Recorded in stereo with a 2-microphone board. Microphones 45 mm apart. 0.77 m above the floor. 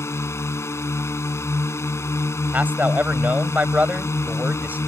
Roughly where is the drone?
Left.